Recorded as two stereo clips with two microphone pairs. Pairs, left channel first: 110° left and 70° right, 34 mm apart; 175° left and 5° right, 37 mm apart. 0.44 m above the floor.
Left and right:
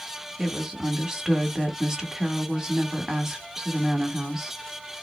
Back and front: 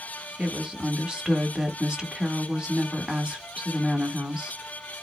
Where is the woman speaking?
25° right, 1.2 m.